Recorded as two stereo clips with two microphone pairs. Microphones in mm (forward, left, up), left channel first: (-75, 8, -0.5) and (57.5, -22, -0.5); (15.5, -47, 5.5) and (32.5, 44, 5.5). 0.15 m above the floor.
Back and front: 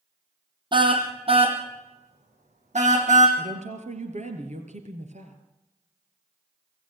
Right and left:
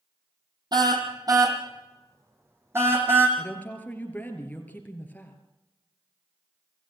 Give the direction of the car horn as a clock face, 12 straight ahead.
11 o'clock.